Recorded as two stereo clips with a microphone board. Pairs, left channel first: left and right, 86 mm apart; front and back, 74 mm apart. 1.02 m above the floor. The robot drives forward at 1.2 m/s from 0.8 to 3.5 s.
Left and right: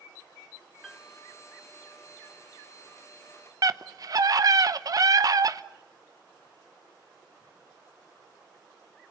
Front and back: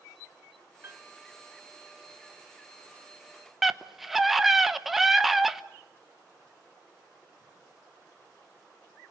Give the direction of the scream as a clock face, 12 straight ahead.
3 o'clock.